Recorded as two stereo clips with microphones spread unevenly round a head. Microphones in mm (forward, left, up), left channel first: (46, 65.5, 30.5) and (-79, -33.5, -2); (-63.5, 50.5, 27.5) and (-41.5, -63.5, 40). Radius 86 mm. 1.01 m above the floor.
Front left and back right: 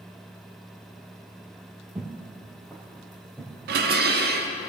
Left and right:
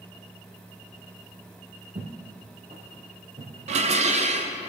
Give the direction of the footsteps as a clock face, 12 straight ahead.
2 o'clock.